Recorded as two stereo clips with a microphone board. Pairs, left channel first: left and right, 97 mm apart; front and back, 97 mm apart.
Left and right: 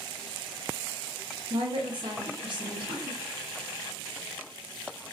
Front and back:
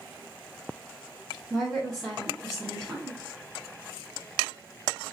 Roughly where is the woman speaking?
Right.